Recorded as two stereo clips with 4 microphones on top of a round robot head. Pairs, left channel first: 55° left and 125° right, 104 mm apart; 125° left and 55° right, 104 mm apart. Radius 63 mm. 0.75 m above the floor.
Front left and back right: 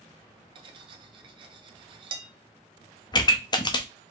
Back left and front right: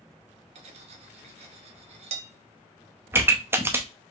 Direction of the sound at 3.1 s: 15° left.